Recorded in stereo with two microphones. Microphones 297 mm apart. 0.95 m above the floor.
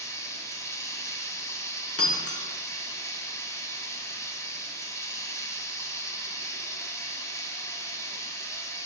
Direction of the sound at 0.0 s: 10° left (ahead or behind).